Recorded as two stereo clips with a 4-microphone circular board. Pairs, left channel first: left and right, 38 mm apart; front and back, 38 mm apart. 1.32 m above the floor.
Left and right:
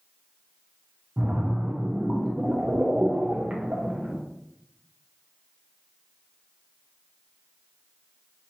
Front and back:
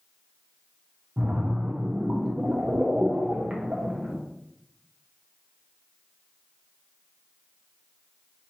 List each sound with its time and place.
1.2 s a splash: 130° right, 0.7 m